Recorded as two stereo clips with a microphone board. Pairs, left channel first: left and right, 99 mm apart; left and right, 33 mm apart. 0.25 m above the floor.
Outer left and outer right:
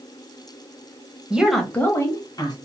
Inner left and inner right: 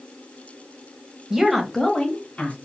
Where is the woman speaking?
10° right (ahead or behind), 1.2 m; by 2.5 s 40° left (ahead or behind), 1.6 m.